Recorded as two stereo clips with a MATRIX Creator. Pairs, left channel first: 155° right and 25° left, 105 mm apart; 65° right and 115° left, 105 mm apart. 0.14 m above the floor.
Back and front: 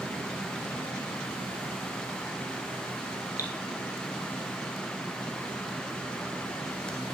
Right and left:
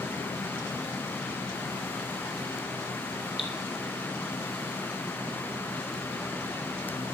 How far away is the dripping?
About 2.5 m.